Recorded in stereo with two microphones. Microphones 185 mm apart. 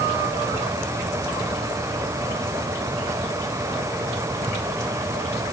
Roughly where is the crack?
No crack in this recording.